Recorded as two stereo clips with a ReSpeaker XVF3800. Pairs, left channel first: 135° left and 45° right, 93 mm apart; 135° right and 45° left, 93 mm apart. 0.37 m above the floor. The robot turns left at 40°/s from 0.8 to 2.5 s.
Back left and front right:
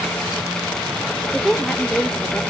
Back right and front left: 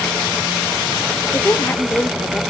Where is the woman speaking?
145° right, 0.8 m; by 2.4 s 170° left, 0.8 m.